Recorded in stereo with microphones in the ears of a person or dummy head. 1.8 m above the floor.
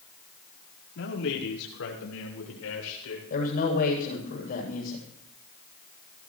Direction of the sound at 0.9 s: 75° left (ahead or behind).